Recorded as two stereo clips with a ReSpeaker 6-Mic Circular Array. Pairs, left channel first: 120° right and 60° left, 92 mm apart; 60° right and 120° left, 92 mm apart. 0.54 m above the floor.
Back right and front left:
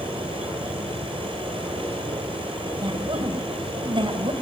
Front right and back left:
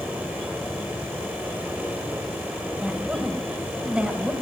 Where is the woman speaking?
45° left, 3.5 m.